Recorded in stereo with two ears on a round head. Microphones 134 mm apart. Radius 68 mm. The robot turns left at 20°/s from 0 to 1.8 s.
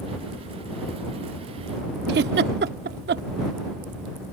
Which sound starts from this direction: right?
A giggle, at 2.1 s.